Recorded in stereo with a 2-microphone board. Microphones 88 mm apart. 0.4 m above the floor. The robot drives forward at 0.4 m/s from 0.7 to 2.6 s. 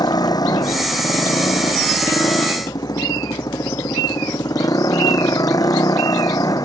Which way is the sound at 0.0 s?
50° left (ahead or behind).